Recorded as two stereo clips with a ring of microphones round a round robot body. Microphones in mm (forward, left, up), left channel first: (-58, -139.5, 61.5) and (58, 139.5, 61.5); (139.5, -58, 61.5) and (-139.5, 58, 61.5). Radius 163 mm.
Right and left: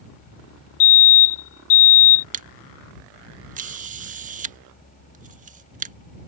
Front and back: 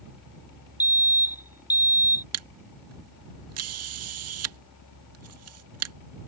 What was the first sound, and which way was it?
A fire alarm, 120° right.